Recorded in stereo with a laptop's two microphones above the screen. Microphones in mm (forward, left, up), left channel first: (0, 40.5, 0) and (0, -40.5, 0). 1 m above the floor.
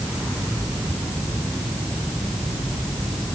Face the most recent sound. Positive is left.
No sound to turn to.